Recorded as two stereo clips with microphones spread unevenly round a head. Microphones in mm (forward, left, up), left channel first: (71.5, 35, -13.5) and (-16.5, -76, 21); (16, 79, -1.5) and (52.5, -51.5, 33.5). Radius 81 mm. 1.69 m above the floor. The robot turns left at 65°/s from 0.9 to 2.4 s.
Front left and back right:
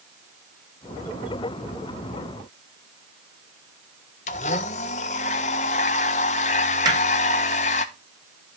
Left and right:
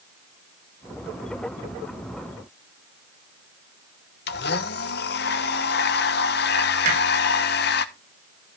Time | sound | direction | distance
4.3 | a blender | 105° left | 1.3 m
6.8 | hammering | 70° right | 5.5 m